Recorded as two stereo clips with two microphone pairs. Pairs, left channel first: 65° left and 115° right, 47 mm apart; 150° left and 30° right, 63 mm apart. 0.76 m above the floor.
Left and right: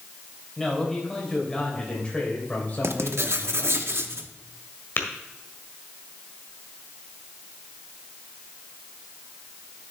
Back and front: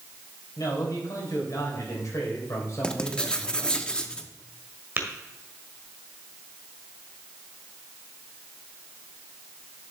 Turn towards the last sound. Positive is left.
turn(degrees=25)